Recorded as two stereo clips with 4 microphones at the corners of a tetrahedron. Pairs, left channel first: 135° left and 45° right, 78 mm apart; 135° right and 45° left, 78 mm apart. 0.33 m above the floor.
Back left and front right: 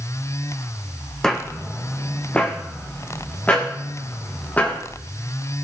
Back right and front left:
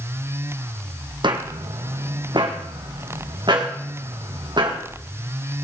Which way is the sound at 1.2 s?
50° left.